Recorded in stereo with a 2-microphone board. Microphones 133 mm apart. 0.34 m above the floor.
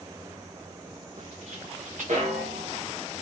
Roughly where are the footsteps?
Right.